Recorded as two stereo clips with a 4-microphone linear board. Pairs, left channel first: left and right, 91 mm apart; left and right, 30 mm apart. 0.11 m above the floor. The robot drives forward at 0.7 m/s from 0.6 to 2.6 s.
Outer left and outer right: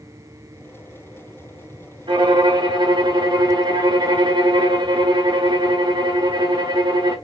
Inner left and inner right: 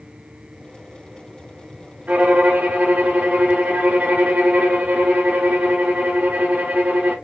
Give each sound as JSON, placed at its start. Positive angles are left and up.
{"t": 2.1, "sound": "a violin", "side_deg": -55, "distance_m": 3.0}